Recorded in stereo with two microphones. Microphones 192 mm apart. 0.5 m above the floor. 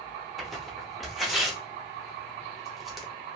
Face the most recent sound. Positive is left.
turn(degrees=0)  # may be behind; listen again after turning